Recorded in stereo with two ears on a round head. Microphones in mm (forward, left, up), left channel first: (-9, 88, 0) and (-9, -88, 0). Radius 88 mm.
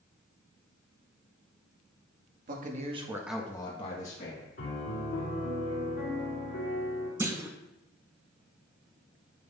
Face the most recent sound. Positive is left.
turn(degrees=-15)  # may be behind; listen again after turning